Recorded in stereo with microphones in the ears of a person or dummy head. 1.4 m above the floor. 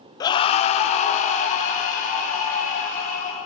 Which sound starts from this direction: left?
A scream, at 0.2 s.